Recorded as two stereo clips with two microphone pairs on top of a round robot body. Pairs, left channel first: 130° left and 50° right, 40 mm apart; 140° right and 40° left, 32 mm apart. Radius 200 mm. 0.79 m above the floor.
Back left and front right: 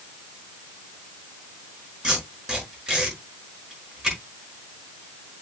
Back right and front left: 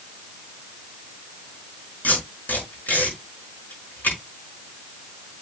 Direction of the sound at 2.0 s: 120° right.